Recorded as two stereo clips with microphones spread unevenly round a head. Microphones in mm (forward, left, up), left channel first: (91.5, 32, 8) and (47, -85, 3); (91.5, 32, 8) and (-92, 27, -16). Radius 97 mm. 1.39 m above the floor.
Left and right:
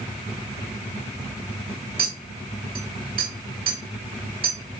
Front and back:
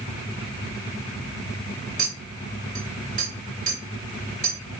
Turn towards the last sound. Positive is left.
turn(degrees=-125)